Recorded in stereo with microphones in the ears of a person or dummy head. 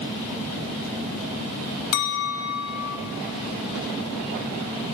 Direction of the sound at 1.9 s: 55° left (ahead or behind).